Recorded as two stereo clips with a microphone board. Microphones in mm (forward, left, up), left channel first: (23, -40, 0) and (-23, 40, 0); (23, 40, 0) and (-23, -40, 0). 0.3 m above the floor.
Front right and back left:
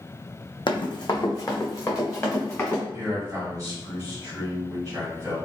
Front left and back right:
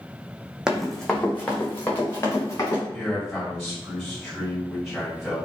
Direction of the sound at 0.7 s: 40° right.